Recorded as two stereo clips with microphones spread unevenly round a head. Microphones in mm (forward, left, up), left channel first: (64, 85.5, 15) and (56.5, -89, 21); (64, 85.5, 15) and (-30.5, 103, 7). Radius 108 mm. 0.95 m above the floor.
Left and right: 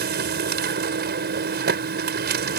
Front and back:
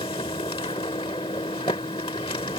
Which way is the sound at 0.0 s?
75° right.